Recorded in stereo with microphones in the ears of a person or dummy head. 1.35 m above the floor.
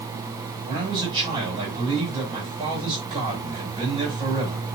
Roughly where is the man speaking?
Right.